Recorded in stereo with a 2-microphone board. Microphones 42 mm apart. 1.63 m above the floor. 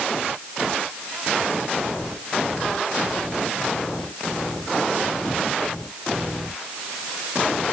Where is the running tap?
I don't hear a running tap.